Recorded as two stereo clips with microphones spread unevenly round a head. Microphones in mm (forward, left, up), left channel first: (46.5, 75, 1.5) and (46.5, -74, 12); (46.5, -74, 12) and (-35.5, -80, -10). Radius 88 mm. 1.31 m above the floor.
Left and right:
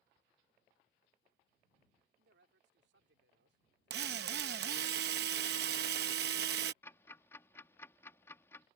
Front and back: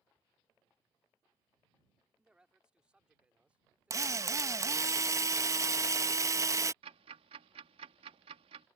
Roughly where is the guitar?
No guitar in this recording.